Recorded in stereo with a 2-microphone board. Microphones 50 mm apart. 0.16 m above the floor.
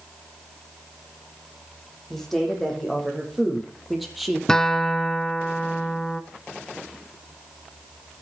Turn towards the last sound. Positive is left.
turn(degrees=15)  # may be behind; listen again after turning